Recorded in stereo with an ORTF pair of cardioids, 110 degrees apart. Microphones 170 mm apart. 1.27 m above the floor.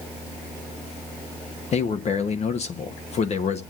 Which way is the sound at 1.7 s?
40° left.